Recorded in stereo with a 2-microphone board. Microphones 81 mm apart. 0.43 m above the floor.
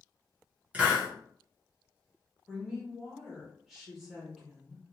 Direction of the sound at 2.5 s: Centre (ahead or behind).